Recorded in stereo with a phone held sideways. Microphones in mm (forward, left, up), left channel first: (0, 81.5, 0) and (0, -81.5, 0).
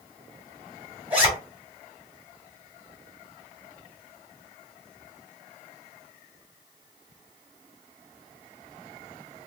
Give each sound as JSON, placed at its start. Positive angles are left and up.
{"t": 1.1, "sound": "a zipper", "side_deg": -10, "distance_m": 2.0}